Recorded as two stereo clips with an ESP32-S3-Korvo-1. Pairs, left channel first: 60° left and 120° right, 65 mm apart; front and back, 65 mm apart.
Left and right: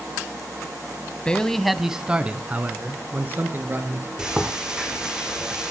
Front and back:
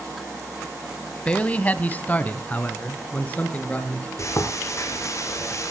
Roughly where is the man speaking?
Ahead left.